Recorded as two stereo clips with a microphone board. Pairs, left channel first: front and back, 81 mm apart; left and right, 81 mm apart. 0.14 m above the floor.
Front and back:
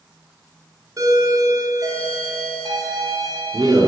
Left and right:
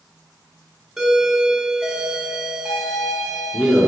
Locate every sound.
1.0 s a doorbell: 175° right, 2 m